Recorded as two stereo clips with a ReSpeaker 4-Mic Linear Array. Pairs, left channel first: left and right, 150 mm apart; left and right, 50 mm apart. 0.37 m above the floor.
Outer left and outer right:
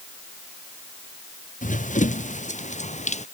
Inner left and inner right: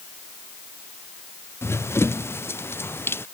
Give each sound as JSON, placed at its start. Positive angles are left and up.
{"t": 1.6, "sound": "running footsteps", "side_deg": 60}